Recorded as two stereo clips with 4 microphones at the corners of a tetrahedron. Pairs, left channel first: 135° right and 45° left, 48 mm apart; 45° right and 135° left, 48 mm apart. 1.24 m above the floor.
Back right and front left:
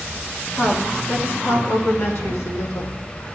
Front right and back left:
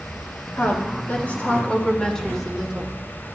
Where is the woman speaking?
90° right, 2 m; by 3.0 s 145° right, 1.8 m.